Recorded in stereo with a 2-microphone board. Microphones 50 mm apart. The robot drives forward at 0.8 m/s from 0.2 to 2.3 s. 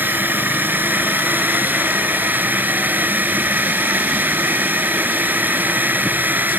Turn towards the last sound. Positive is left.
turn(degrees=-35)  # may be behind; listen again after turning